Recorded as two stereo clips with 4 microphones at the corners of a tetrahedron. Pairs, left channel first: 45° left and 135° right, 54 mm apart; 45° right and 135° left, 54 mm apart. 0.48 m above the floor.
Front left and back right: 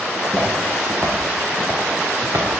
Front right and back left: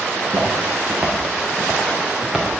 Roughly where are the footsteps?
Behind left.